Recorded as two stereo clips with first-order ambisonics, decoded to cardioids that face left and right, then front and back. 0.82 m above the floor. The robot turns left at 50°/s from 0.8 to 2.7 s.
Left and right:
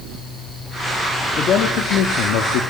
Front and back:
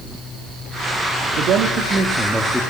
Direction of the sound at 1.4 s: 150° left.